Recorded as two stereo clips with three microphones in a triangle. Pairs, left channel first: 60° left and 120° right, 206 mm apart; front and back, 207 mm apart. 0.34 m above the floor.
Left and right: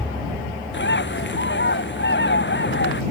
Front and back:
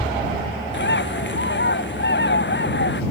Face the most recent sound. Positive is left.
turn(degrees=30)